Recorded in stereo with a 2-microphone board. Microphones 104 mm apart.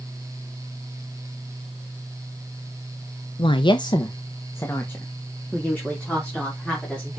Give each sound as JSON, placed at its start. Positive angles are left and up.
{"t": 3.4, "sound": "a woman speaking", "side_deg": 55, "distance_m": 0.7}